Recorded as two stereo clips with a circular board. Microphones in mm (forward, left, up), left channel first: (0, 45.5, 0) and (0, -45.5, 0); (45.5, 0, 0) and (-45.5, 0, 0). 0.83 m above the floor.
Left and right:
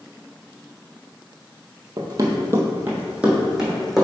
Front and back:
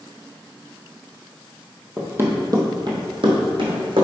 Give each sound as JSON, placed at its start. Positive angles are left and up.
{"t": 2.0, "sound": "running footsteps", "azimuth_deg": -115, "distance_m": 1.2}